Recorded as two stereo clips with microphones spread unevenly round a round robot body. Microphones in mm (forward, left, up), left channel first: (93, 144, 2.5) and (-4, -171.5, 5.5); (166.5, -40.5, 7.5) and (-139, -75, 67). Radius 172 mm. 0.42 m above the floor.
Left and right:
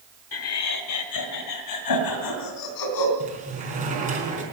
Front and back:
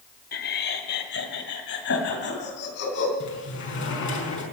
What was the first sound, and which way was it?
Laughter, 45° left.